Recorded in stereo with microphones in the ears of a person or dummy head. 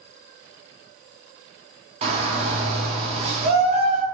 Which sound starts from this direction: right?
A shout, at 2.0 s.